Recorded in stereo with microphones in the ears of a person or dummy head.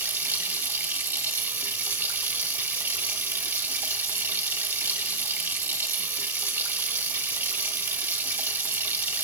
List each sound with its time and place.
0.0 s running water: 10° right (ahead or behind), 0.8 m